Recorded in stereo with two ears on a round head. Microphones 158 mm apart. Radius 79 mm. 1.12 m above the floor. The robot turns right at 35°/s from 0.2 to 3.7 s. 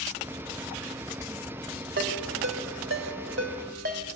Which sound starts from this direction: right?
A ringtone, at 2.0 s.